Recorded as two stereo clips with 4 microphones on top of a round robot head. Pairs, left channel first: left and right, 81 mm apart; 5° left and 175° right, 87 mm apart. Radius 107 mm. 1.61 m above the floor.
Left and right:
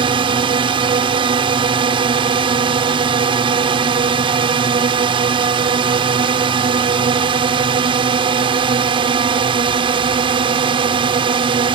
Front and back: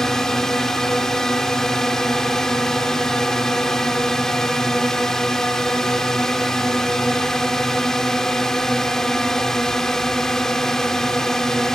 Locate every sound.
0.0 s a drone: 80° right